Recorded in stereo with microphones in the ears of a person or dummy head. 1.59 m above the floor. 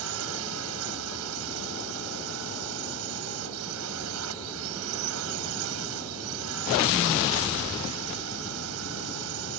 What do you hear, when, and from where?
0.0 s a drone: 85° right